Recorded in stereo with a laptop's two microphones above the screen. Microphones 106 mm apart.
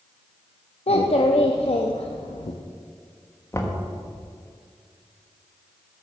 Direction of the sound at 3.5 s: 25° left (ahead or behind).